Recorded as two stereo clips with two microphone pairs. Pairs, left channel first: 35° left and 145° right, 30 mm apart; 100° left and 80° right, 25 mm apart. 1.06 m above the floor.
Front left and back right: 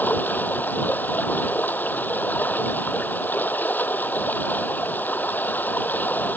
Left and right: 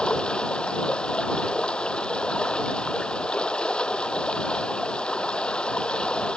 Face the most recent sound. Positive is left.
turn(degrees=50)